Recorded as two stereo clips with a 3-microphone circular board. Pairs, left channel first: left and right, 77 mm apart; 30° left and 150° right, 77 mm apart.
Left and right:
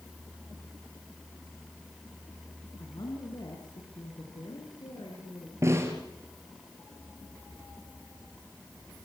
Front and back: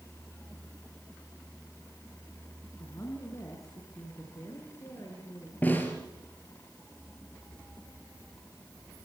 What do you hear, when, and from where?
2.8 s a woman speaking: 75° left, 5 m
5.6 s a snare drum: 35° right, 4 m